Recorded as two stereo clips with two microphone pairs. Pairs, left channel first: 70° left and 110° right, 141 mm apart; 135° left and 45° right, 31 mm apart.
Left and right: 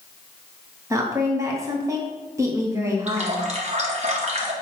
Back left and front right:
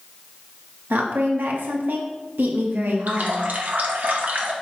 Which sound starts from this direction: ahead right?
A woman speaking, at 0.9 s.